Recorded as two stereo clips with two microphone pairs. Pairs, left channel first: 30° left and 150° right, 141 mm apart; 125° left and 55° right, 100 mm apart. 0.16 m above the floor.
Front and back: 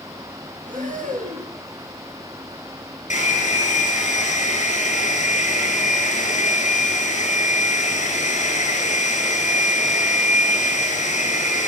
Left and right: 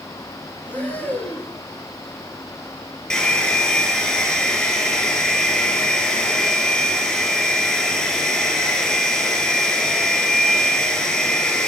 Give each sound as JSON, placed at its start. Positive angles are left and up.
{"t": 0.7, "sound": "breathing", "azimuth_deg": -160, "distance_m": 1.9}
{"t": 3.1, "sound": "a hair dryer", "azimuth_deg": 45, "distance_m": 2.5}